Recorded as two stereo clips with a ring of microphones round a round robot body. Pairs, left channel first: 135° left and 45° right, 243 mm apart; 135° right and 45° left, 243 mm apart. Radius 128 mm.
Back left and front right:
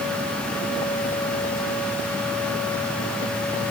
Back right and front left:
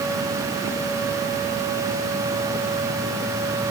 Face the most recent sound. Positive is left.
No sound to turn to.